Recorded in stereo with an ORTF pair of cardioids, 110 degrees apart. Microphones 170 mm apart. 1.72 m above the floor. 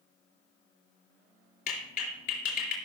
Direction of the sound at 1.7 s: 65° left.